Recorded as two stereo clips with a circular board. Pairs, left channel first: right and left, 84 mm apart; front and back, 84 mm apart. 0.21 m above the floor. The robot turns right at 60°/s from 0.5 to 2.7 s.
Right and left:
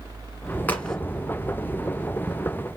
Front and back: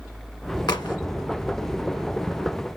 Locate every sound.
0.7 s a crack: 25° right, 1.1 m; by 1.0 s 5° right, 1.1 m